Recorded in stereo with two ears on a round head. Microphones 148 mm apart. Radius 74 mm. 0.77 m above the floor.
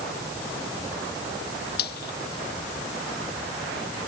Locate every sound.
1.8 s frying: 65° left (ahead or behind)